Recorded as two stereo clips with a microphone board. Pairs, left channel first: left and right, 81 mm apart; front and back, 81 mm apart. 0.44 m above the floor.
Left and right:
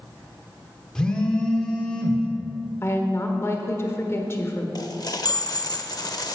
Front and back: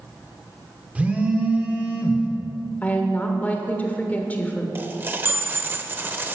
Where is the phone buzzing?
150° left, 1.1 m.